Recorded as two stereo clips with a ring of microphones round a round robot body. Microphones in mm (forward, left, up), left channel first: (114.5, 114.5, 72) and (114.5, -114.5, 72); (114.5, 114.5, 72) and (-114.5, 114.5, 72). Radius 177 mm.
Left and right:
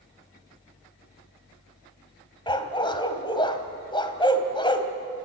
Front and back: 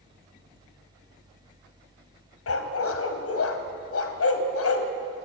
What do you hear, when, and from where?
2.5 s a dog barking: 20° left, 1.7 m